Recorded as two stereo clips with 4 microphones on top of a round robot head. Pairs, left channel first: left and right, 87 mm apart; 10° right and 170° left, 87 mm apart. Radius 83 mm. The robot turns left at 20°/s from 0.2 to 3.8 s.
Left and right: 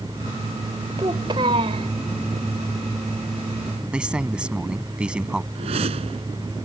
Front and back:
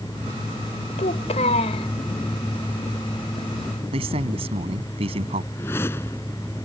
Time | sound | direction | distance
1.0 | a child speaking | 30° right | ?
3.9 | a man speaking | 170° right | ?
5.5 | a whoosh | 80° right | ?